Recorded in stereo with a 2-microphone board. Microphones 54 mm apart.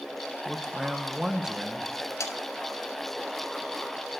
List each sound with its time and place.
0.5 s a man speaking: 10° right (ahead or behind), 1.1 m
2.2 s sawing: 70° left (ahead or behind), 1.3 m